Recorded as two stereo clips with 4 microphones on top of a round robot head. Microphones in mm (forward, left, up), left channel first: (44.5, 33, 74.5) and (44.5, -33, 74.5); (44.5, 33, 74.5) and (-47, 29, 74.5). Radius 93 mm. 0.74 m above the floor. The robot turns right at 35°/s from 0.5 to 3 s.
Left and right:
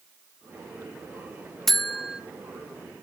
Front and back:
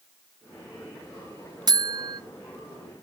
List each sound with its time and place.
1.7 s a buzzer: 175° left, 0.7 m; by 2.2 s 165° right, 0.7 m